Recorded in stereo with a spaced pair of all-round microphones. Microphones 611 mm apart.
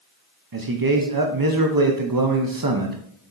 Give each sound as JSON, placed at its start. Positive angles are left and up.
{"t": 0.5, "sound": "a man speaking", "side_deg": -35, "distance_m": 0.8}